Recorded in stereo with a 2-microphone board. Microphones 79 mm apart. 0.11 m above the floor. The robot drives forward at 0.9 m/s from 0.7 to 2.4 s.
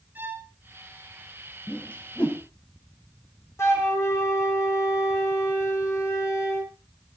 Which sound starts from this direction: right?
A violin, at 0.1 s.